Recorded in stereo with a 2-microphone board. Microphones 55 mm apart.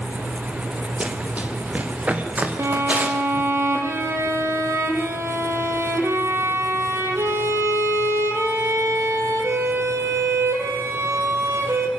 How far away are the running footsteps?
About 2 m.